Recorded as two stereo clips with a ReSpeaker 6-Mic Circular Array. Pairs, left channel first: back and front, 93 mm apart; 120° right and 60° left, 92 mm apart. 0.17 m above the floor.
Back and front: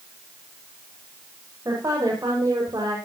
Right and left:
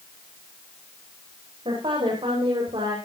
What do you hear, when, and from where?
1.6 s a woman speaking: 50° left, 8.5 m; by 3.0 s 45° left, 7.5 m